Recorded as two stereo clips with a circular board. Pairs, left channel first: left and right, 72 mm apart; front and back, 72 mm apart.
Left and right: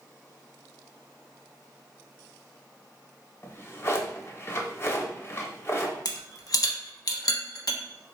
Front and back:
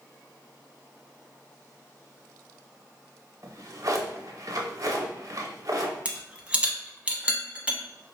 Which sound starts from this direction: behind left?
A drawer, at 3.4 s.